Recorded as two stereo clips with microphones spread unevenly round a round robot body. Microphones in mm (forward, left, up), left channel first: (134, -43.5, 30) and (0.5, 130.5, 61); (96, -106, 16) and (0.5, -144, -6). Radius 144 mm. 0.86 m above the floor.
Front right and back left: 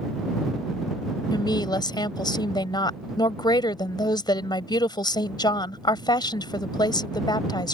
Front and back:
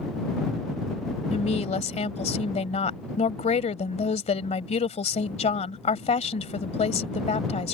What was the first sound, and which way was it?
A woman speaking, 20° left.